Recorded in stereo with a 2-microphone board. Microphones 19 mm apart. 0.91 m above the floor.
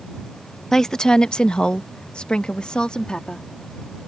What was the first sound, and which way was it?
A woman speaking, 25° left (ahead or behind).